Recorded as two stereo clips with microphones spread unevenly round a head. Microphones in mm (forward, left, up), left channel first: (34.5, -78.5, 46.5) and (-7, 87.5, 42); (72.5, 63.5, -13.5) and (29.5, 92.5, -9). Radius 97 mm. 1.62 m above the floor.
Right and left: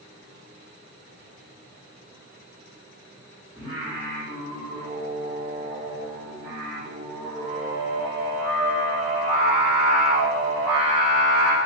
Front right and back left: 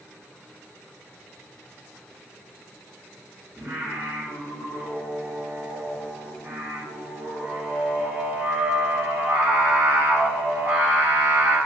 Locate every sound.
3.6 s singing: 160° left, 1.1 m